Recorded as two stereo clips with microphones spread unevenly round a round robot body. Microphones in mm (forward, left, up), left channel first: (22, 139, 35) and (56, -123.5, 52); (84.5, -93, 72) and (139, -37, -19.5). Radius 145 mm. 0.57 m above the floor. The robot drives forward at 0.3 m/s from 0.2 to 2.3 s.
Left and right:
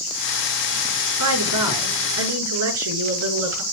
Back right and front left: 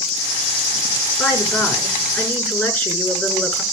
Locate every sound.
1.2 s a woman speaking: 65° right, 6.5 m